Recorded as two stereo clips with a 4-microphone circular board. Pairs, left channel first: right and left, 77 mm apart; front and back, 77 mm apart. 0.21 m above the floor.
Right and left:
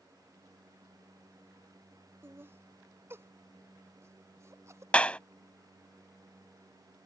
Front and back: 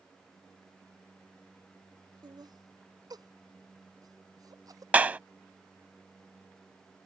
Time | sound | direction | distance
2.2 | laughter | 150° left | ?
4.9 | a clap | 140° right | ?